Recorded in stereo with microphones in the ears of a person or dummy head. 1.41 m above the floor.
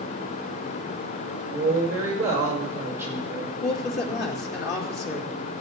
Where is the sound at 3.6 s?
60° left (ahead or behind), 3 m.